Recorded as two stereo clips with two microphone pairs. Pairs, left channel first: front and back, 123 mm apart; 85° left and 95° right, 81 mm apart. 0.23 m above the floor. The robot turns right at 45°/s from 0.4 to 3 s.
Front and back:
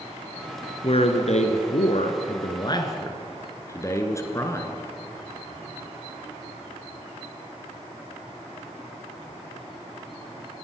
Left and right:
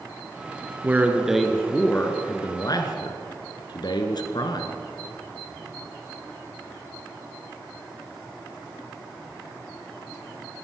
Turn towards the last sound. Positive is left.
turn(degrees=65)